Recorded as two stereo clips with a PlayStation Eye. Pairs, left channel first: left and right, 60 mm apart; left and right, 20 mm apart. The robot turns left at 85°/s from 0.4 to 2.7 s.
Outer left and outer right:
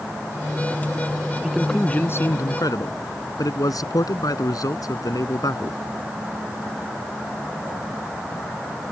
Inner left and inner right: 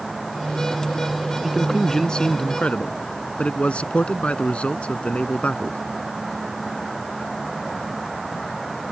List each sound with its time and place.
1.4 s a man speaking: 160° right; by 5.8 s 90° left